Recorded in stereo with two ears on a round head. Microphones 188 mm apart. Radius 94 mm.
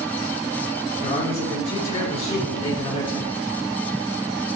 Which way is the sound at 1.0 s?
30° left (ahead or behind).